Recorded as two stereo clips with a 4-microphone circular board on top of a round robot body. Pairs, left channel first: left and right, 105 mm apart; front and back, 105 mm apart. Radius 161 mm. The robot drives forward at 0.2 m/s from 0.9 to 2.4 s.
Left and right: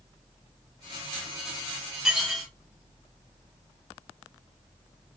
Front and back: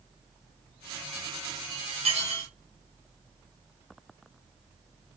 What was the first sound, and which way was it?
Dishes clattering, 175° right.